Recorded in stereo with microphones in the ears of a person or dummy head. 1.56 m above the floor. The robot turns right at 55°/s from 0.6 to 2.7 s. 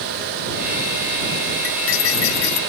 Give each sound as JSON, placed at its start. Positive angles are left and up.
{"t": 1.6, "sound": "cutlery clinking", "azimuth_deg": 55}